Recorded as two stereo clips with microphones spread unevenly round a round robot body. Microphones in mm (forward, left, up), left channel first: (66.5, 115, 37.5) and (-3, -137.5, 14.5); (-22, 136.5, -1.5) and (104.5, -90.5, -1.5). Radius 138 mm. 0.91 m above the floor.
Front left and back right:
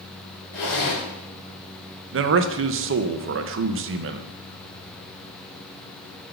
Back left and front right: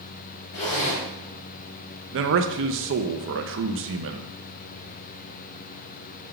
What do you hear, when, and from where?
0.5 s a zipper: 85° left, 3 m
2.1 s a man speaking: 90° right, 0.5 m